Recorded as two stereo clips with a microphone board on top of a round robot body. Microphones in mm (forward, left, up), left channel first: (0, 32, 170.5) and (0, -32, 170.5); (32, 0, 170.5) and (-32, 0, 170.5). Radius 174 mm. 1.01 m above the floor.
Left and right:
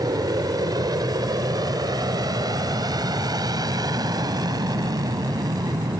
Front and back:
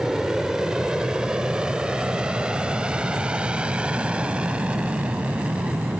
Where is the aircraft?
100° right; by 6.0 s 105° right.